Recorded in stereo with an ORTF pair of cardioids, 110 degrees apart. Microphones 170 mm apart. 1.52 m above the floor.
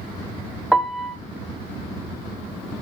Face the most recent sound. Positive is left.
turn(degrees=0)